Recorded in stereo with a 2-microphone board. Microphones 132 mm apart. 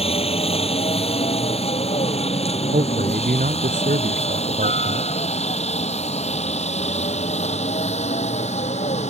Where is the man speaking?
85° right.